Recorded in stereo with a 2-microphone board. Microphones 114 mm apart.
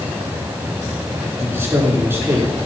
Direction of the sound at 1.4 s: 20° right (ahead or behind).